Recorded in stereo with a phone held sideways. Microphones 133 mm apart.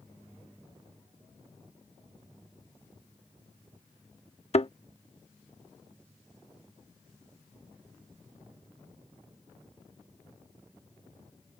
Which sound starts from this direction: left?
A thud, at 4.5 s.